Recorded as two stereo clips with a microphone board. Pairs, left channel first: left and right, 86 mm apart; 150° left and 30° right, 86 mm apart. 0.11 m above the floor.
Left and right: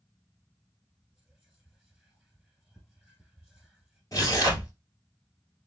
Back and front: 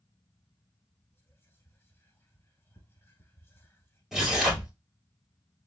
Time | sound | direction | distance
1.1 | whispering | 175° right | 1.2 m
4.1 | tearing paper | 55° left | 2 m